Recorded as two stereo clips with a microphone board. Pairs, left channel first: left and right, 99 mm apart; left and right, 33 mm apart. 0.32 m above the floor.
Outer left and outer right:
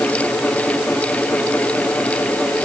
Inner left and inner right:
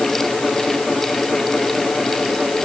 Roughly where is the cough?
No cough in this recording.